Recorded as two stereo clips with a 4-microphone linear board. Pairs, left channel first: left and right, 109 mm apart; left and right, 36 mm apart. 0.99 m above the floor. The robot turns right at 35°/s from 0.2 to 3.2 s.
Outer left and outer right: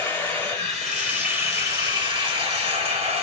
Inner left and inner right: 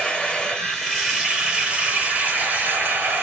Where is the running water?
160° left, 2.5 m; by 3.2 s 95° right, 2.5 m.